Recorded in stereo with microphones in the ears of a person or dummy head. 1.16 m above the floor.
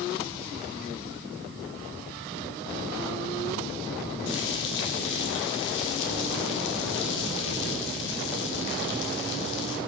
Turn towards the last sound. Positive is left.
turn(degrees=70)  # may be behind; listen again after turning